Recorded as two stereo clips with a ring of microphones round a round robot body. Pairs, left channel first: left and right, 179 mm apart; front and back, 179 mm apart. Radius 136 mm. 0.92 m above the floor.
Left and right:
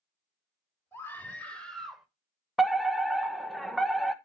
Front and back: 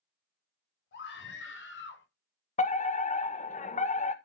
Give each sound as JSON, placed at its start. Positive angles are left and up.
{"t": 0.9, "sound": "a scream", "azimuth_deg": 15, "distance_m": 4.0}
{"t": 2.6, "sound": "a fire alarm", "azimuth_deg": 0, "distance_m": 1.5}